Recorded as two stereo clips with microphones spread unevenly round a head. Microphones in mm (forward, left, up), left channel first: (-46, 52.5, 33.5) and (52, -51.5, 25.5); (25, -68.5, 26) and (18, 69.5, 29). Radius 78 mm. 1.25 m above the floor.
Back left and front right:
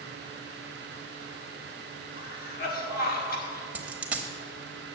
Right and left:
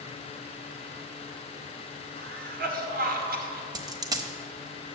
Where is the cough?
110° left, 1.9 m.